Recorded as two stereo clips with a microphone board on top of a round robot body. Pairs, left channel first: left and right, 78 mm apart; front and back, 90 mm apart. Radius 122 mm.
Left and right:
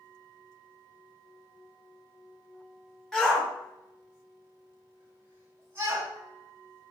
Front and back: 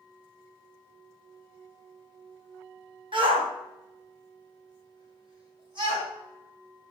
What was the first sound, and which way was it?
A shout, 175° left.